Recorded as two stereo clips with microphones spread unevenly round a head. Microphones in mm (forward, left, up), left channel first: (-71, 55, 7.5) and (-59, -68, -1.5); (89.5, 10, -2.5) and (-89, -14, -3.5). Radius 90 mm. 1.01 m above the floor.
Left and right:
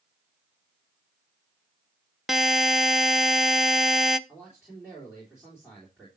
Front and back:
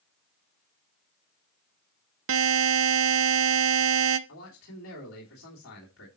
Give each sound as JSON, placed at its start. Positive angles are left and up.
{"t": 2.3, "sound": "a buzzer", "azimuth_deg": -170, "distance_m": 0.6}
{"t": 4.3, "sound": "a man speaking", "azimuth_deg": 5, "distance_m": 3.0}